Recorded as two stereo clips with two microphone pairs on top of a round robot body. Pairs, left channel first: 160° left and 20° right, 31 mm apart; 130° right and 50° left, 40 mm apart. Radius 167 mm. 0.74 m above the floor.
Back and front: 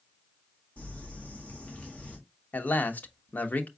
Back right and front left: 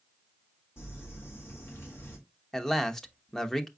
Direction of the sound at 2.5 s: 150° left.